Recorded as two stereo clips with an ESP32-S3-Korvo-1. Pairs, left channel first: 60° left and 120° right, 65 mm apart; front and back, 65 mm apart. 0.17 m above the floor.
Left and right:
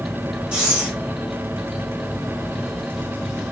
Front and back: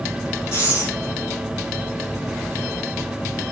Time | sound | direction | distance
0.5 | breathing | 45° right | 3 m